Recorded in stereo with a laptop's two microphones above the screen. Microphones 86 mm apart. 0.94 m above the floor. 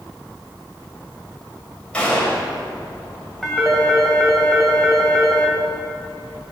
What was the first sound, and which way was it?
A gunshot, 15° left (ahead or behind).